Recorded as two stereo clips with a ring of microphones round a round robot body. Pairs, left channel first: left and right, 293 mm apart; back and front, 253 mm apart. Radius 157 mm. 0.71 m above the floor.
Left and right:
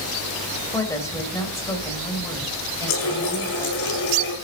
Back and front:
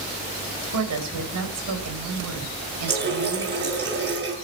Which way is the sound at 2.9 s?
50° left.